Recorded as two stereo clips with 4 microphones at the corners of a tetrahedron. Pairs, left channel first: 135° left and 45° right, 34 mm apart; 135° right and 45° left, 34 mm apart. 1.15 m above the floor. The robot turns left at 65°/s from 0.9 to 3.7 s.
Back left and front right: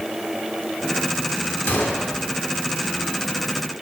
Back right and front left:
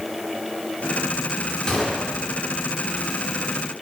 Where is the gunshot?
160° left, 2 m; by 2.1 s 135° left, 2 m.